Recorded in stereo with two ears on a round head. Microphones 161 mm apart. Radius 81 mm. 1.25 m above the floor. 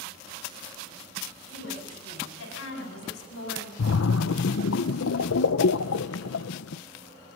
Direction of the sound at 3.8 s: 85° left.